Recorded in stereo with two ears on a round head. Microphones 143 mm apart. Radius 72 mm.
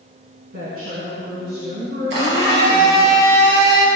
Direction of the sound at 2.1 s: 85° right.